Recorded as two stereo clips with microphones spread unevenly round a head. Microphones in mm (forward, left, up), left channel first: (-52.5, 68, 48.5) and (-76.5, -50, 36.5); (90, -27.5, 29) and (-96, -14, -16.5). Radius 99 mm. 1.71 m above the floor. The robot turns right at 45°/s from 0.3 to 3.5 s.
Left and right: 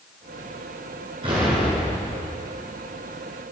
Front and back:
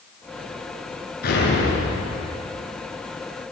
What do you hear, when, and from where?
1.2 s an explosion: 40° right, 7.5 m; by 2.2 s 5° left, 7.5 m